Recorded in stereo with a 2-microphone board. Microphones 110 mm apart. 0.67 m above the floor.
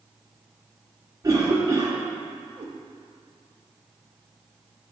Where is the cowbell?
I don't hear a cowbell.